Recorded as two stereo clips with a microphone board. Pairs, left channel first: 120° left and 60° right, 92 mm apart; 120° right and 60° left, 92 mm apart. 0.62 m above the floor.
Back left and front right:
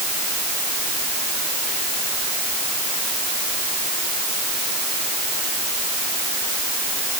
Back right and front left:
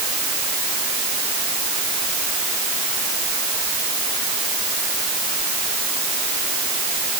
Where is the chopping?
No chopping in this recording.